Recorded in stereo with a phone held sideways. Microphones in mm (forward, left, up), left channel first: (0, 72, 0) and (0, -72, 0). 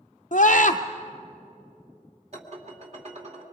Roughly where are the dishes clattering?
Right.